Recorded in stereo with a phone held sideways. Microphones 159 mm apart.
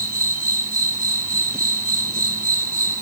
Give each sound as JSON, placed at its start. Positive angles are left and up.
{"t": 0.0, "sound": "an insect", "side_deg": -65, "distance_m": 3.0}